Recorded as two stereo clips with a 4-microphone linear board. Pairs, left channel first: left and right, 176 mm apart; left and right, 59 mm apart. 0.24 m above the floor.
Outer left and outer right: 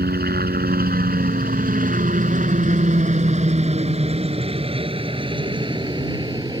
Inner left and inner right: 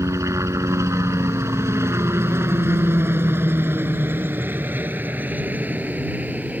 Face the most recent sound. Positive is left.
turn(degrees=-25)  # may be behind; listen again after turning